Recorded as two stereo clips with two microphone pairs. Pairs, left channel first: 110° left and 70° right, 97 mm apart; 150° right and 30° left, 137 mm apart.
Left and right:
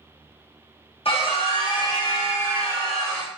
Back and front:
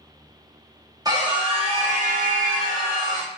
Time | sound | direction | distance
1.1 | a scream | 95° left | 1.1 m